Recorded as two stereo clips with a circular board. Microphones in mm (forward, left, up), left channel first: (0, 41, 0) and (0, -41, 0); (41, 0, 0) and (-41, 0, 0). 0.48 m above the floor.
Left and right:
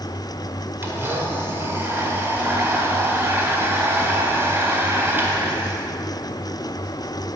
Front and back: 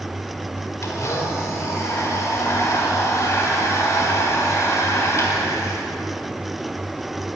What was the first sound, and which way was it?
A blender, 35° right.